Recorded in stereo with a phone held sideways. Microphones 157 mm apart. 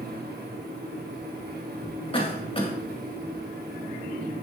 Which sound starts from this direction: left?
A cough, at 2.1 s.